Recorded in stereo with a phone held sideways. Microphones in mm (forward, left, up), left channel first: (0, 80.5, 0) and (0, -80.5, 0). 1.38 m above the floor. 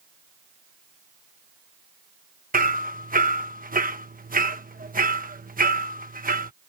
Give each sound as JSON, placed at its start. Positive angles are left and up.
{"t": 2.5, "sound": "hammering", "side_deg": -70}